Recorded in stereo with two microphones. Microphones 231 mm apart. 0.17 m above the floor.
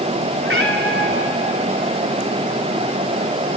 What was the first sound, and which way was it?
A cat meowing, 60° right (ahead or behind).